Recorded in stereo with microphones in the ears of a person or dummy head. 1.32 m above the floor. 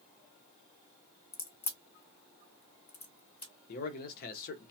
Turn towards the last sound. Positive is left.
turn(degrees=50)  # may be behind; listen again after turning